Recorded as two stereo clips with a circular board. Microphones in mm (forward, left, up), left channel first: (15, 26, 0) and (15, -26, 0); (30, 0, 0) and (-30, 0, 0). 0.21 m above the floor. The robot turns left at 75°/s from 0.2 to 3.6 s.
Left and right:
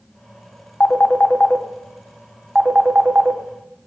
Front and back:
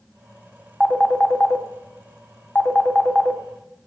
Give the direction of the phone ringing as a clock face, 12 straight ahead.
9 o'clock.